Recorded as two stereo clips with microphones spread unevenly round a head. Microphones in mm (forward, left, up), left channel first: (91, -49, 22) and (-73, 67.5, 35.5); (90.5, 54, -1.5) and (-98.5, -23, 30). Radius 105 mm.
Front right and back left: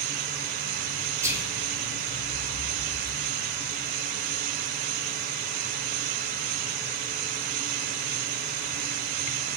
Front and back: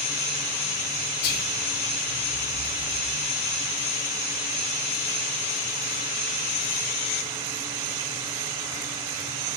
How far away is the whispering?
About 0.9 m.